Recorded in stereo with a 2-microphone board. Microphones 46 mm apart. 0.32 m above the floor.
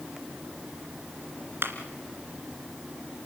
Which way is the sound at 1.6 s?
65° right (ahead or behind).